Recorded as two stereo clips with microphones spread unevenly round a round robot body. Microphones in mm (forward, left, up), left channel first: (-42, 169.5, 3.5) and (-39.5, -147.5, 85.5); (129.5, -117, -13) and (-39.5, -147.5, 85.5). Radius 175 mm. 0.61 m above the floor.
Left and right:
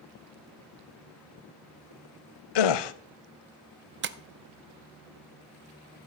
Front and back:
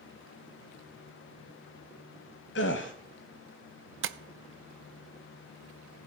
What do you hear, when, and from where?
2.5 s a gasp: 70° left, 0.8 m
4.0 s tapping: 150° right, 0.8 m